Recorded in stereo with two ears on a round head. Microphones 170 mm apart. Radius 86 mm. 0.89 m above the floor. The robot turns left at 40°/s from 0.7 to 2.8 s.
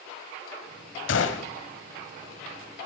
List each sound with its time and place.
1.1 s a gunshot: 70° left (ahead or behind), 1.4 m; by 1.5 s 60° left (ahead or behind), 1.4 m